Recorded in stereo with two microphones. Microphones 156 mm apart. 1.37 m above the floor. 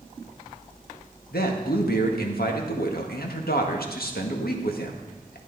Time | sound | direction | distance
1.3 | a man speaking | 85° left | 1.7 m